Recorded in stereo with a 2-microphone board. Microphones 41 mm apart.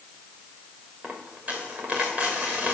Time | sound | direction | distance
1.0 | a dropped coin | 40° right (ahead or behind) | 2.5 m